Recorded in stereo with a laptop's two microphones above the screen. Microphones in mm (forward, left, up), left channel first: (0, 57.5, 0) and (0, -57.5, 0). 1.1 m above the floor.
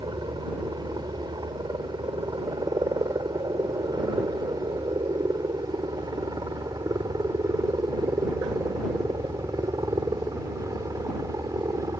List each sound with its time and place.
0.0 s a helicopter: 35° right (ahead or behind); by 12.0 s 30° right (ahead or behind)